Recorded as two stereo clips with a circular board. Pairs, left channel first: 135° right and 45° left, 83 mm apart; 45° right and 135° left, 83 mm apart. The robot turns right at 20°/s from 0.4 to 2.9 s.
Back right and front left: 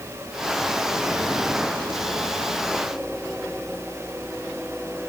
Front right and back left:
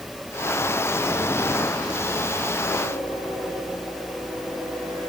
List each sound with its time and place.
Only background noise.